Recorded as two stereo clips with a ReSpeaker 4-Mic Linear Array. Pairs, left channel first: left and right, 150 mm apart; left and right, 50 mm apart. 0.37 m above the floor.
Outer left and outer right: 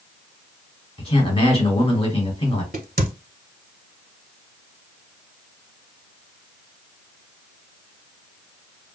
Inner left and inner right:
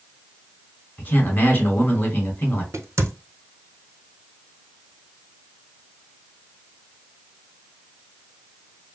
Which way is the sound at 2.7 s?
70° right (ahead or behind).